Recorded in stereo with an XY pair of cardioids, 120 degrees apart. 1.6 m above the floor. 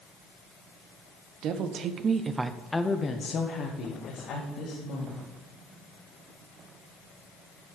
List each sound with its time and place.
1.4 s a woman speaking: 65° right, 1.1 m; by 5.2 s 70° left, 2.5 m